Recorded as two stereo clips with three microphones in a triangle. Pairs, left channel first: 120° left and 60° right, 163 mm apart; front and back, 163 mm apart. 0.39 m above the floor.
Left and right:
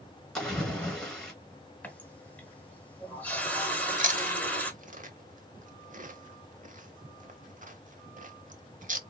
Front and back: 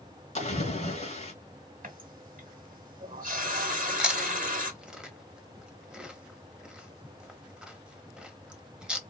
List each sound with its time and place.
0.3 s a splash: 35° left, 2 m
1.8 s a running tap: 160° right, 1.1 m
3.7 s chewing: 95° right, 0.7 m